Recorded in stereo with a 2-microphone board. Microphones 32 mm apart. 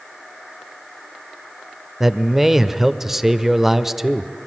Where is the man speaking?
15° right (ahead or behind), 0.9 m.